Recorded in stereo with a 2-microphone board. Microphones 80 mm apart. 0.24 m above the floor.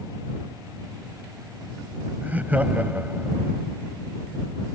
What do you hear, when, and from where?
2.2 s laughter: 20° right (ahead or behind)